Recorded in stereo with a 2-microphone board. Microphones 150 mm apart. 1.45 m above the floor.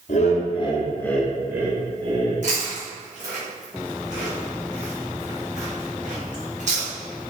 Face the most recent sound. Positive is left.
turn(degrees=-55)  # may be behind; listen again after turning